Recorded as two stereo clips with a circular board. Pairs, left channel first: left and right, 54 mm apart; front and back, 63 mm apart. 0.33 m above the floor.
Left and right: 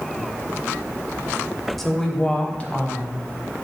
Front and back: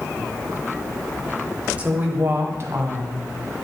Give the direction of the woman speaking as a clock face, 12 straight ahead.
6 o'clock.